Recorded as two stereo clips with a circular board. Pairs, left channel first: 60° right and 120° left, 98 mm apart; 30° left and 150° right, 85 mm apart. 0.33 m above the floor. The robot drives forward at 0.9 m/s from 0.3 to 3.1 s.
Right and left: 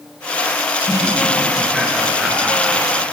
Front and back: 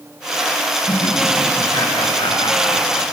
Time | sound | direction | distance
0.9 | laughter | 30° left | 6 m